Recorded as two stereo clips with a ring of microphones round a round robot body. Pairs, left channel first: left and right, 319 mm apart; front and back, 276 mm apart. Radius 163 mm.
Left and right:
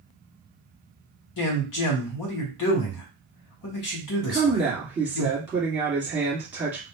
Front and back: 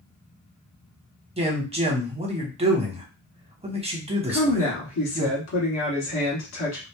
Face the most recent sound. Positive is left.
turn(degrees=-5)